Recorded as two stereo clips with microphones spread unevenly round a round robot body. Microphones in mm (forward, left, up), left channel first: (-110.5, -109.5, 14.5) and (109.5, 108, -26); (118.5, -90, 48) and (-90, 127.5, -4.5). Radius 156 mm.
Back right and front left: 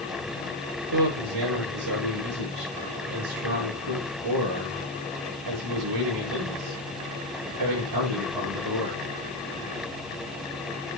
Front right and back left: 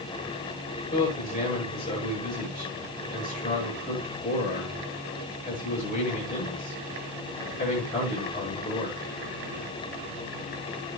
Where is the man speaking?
20° left, 9 m.